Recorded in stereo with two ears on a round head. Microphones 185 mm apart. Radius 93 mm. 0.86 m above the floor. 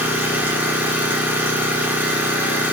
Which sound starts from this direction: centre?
An engine running, at 0.0 s.